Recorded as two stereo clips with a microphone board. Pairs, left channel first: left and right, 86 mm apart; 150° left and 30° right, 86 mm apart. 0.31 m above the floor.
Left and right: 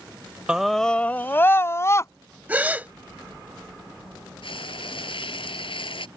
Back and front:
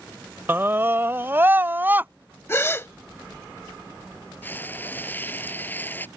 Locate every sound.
0.5 s a scream: 25° right; by 2.1 s 35° left
2.5 s a gasp: 155° right
4.4 s frying: 85° left